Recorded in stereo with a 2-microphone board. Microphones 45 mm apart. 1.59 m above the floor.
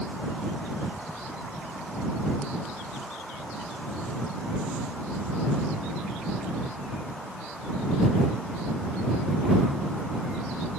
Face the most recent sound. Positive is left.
No sound to turn to.